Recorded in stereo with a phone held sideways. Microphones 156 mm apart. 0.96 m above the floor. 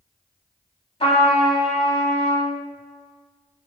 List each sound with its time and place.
1.0 s a trumpet: 35° left (ahead or behind), 0.9 m